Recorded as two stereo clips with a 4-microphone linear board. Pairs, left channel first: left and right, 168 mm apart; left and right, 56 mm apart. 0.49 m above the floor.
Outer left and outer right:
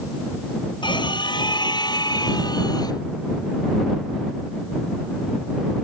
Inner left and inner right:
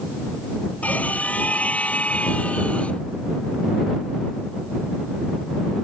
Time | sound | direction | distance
0.8 | a scream | 25° left (ahead or behind) | ?